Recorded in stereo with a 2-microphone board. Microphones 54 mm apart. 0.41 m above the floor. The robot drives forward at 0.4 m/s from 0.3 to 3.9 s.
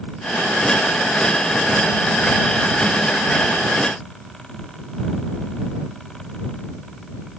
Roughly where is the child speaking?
No child speaking in this recording.